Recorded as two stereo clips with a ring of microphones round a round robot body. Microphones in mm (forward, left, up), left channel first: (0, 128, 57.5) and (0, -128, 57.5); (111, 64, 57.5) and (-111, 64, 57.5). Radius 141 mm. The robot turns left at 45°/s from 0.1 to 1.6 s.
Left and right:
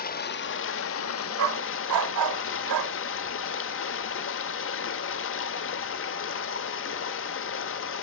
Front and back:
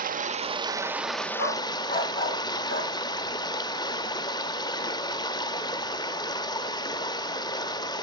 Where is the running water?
135° left, 0.9 m; by 8.0 s 70° left, 0.9 m.